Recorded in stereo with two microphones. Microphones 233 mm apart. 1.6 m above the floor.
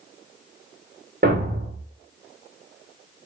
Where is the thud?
40° right (ahead or behind), 1.6 m.